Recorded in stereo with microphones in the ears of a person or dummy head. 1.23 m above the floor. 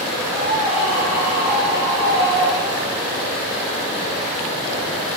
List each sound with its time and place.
0.3 s a scream: 10° right (ahead or behind), 3 m; by 3.0 s 15° right (ahead or behind), 6 m